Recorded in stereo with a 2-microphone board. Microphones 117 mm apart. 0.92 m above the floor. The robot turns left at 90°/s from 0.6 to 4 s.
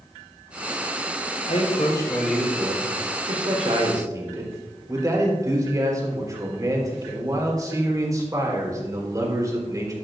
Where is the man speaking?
75° left, 4 m; by 9.9 s 150° right, 4 m.